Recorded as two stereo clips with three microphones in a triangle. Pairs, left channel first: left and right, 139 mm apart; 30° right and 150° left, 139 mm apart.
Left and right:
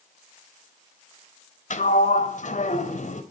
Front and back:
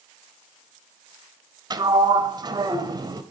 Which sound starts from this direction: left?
A sliding door, at 1.7 s.